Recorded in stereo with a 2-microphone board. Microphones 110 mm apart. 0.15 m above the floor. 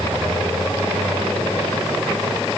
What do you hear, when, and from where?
Only background noise.